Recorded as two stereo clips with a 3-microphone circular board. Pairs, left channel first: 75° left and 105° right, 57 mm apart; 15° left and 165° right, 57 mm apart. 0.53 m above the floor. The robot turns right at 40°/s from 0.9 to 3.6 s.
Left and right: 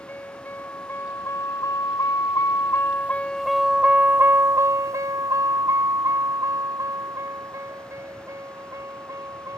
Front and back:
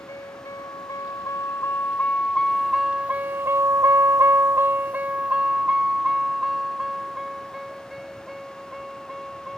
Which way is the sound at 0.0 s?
20° left.